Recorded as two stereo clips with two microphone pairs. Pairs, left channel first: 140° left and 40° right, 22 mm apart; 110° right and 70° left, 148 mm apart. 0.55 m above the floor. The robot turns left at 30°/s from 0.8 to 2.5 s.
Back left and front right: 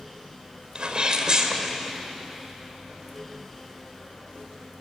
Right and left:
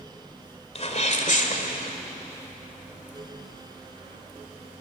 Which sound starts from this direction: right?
A sneeze, at 0.8 s.